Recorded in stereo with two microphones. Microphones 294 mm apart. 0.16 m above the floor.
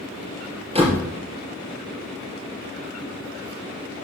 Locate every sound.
0.8 s a door slam: 20° right (ahead or behind), 3 m